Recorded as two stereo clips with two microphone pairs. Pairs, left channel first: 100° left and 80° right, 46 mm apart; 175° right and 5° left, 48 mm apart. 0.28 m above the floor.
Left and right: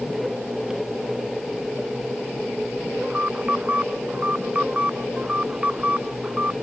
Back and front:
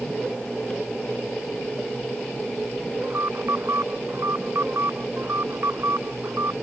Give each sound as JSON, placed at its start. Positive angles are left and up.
{"t": 3.0, "sound": "an alarm", "azimuth_deg": -20}